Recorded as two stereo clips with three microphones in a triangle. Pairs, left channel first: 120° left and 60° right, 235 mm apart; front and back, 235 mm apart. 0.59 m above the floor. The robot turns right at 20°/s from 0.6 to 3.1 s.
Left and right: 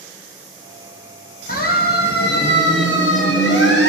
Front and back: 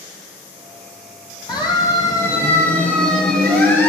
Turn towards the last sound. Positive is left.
turn(degrees=80)